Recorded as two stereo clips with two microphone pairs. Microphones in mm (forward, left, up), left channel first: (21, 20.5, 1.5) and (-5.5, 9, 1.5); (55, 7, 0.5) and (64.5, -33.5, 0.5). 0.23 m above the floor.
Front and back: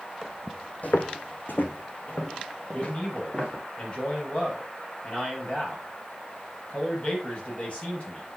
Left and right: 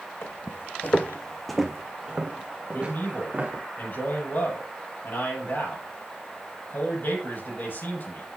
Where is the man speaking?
75° left, 5.5 m.